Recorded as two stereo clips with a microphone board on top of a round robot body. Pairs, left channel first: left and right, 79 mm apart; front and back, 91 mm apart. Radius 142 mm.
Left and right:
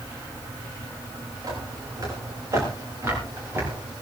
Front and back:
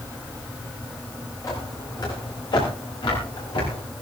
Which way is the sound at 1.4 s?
50° right.